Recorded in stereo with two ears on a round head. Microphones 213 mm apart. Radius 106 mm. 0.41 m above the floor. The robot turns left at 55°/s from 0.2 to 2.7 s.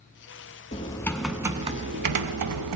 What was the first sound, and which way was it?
Typing on a keyboard, 30° left.